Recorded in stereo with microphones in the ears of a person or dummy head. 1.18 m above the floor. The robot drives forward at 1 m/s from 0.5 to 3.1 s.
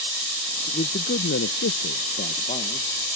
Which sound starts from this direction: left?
A man speaking, at 0.7 s.